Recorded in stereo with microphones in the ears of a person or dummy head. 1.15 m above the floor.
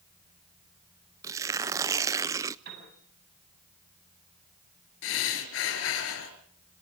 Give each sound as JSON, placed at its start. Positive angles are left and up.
{"t": 1.2, "sound": "tearing paper", "side_deg": -20, "distance_m": 0.6}
{"t": 2.6, "sound": "a piano", "side_deg": -55, "distance_m": 9.0}
{"t": 5.0, "sound": "breathing", "side_deg": 75, "distance_m": 4.0}